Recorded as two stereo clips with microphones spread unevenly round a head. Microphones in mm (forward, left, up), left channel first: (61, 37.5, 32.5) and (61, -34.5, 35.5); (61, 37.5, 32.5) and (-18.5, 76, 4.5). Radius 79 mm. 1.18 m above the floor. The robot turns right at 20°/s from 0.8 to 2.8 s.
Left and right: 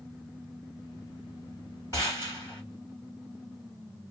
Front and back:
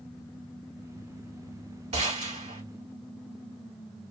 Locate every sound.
1.9 s a gunshot: 160° left, 3 m; by 2.6 s 175° left, 3 m